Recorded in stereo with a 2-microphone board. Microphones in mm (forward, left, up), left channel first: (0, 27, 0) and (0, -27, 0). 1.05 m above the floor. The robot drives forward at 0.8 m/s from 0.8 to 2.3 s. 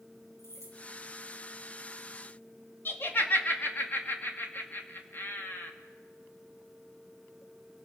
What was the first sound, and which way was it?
Keys jangling, 65° left (ahead or behind).